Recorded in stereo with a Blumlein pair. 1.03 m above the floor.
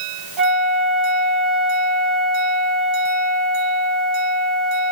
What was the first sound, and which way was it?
A flute, 25° right.